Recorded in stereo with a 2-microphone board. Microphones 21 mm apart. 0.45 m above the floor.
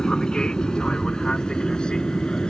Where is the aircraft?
50° left (ahead or behind); by 2.5 s 55° left (ahead or behind).